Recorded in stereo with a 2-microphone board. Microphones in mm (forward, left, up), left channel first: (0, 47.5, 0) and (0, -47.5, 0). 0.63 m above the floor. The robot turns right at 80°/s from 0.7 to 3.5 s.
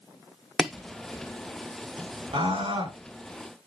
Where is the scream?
110° right, 6.5 m; by 2.9 s 60° right, 6.5 m.